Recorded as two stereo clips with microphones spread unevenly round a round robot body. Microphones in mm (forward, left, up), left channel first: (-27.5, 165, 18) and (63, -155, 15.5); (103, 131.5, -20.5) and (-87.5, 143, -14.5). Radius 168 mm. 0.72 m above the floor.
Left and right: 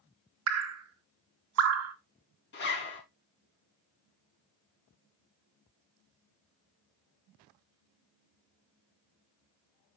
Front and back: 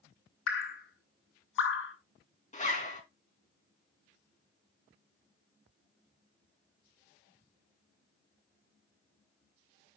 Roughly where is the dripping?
Ahead right.